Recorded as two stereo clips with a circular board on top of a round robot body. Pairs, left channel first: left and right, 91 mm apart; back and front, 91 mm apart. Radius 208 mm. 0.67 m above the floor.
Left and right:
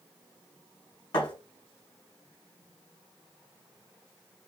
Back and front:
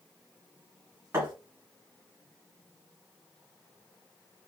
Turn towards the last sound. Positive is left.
turn(degrees=60)